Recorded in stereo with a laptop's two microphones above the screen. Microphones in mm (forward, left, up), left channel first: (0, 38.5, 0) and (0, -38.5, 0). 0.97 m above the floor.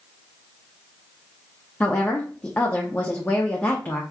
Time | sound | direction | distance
1.8 | a woman speaking | 20° left (ahead or behind) | 0.7 m